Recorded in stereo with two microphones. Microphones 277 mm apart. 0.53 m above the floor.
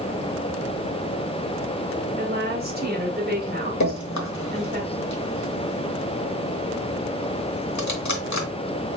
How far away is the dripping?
About 1.0 m.